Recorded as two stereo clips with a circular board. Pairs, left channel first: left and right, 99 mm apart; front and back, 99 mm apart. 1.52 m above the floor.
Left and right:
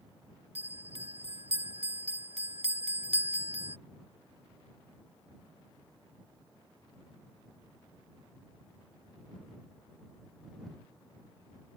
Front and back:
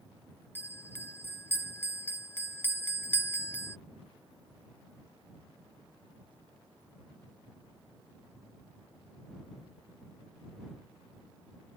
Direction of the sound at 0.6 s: 70° right.